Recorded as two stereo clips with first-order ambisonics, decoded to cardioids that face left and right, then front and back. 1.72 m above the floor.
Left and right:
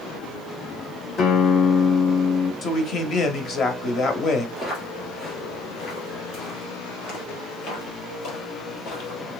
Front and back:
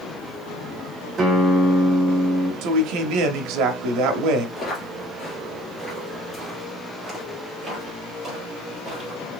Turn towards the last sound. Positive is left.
turn(degrees=120)